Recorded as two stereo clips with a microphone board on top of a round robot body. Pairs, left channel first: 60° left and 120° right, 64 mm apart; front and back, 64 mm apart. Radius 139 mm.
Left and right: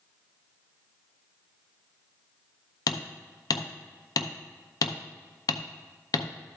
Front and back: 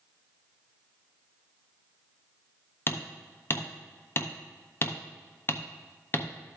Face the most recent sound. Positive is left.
turn(degrees=55)